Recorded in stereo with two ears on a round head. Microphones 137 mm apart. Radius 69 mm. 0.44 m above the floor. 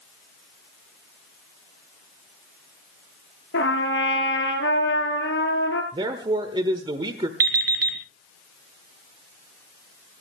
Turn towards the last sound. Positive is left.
turn(degrees=-70)  # may be behind; listen again after turning